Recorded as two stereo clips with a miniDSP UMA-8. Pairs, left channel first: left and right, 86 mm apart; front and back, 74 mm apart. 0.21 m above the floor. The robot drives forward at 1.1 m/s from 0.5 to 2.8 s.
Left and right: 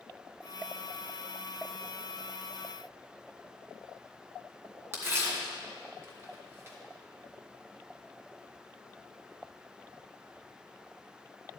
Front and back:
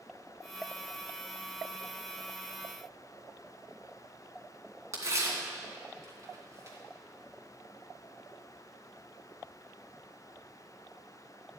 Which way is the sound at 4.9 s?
145° right.